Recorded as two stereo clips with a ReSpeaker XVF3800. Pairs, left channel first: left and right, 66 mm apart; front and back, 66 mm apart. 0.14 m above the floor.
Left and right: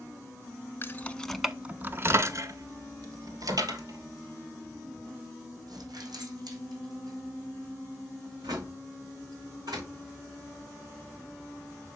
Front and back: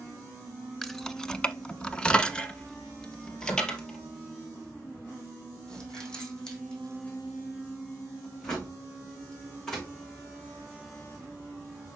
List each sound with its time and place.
0.8 s keys jangling: 80° left, 0.8 m; by 9.9 s 80° right, 7 m